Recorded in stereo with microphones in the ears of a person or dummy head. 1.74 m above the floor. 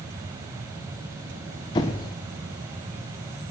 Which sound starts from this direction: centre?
A squeak, at 1.8 s.